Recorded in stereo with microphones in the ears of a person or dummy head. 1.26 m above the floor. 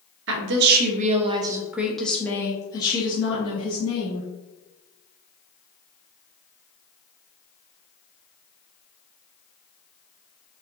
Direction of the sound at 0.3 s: 70° right (ahead or behind).